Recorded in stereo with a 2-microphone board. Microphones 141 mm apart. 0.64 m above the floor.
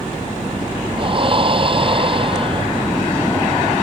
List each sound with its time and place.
1.0 s breathing: 40° right (ahead or behind)